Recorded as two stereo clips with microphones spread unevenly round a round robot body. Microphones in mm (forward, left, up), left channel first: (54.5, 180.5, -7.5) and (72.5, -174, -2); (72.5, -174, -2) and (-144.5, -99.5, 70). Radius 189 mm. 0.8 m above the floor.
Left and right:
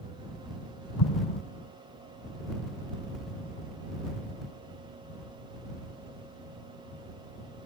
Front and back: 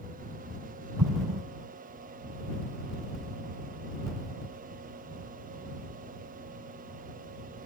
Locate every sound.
1.0 s an explosion: 130° left